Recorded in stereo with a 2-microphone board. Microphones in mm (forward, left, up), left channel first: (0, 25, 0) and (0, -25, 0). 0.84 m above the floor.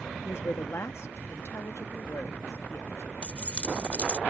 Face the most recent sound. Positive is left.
turn(degrees=25)  # may be behind; listen again after turning